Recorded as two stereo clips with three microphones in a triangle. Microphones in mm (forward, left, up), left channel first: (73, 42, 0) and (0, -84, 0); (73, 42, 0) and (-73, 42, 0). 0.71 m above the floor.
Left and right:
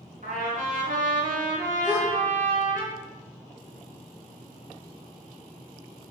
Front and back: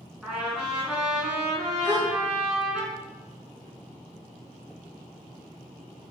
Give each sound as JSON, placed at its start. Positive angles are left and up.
{"t": 0.2, "sound": "a trumpet", "azimuth_deg": -95, "distance_m": 2.5}
{"t": 1.8, "sound": "a gasp", "azimuth_deg": -140, "distance_m": 2.5}